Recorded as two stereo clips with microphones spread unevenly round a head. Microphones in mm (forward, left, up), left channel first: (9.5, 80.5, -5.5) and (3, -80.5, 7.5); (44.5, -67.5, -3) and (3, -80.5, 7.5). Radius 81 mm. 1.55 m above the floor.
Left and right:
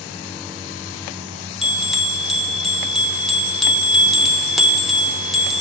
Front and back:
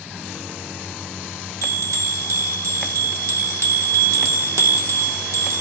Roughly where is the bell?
Behind.